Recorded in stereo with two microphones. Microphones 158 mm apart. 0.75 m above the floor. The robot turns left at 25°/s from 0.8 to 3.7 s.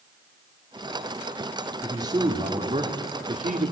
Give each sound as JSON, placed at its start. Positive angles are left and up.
{"t": 1.8, "sound": "a man speaking", "azimuth_deg": -20, "distance_m": 2.0}